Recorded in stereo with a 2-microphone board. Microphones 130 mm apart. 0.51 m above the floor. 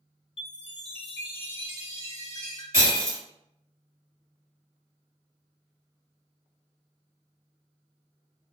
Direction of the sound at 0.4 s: 55° left (ahead or behind).